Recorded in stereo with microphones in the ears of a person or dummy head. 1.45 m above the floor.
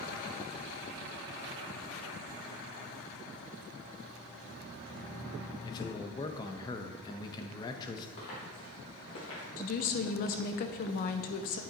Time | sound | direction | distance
5.6 | a man speaking | 25° left (ahead or behind) | 0.6 m
8.2 | footsteps | 55° left (ahead or behind) | 2.5 m
9.6 | a woman speaking | 45° left (ahead or behind) | 0.5 m